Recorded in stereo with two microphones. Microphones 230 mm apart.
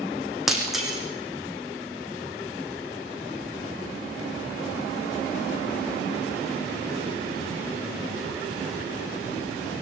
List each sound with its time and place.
0.5 s breaking glass: centre (ahead or behind), 5.5 m